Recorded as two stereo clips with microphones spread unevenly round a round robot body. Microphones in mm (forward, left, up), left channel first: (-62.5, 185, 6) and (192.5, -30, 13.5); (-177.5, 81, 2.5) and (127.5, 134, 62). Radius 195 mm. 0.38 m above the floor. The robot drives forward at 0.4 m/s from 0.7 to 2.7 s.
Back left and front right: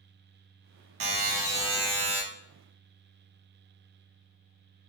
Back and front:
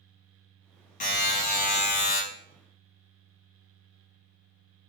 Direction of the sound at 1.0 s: 100° right.